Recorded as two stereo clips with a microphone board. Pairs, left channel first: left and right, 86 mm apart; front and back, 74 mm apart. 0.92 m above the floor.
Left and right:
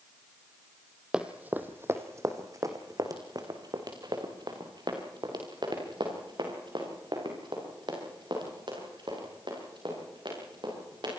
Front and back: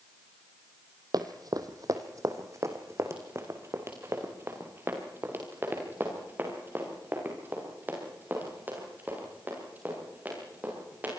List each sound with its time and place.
1.1 s running footsteps: 165° right, 1.8 m; by 11.1 s 115° right, 12.5 m